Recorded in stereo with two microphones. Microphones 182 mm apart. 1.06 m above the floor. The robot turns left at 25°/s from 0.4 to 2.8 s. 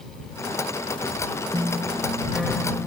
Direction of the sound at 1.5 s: 155° right.